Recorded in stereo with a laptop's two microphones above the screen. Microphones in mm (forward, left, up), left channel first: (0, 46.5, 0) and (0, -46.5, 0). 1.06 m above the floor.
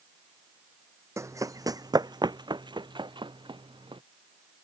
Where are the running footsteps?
30° right (ahead or behind); by 4.0 s 60° right (ahead or behind).